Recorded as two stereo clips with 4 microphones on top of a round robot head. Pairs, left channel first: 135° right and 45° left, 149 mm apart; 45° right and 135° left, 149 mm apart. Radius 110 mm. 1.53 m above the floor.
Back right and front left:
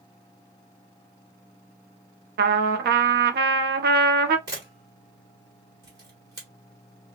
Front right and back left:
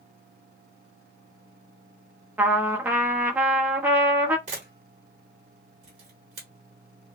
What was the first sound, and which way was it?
A trumpet, 60° left.